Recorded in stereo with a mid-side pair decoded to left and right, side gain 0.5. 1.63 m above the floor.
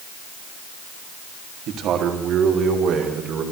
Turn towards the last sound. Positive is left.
turn(degrees=-60)